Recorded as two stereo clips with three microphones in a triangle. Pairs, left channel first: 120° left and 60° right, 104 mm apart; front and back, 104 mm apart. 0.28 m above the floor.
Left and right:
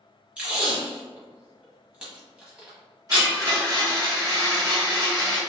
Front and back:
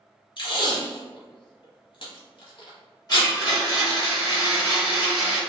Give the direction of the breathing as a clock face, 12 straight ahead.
No breathing in this recording.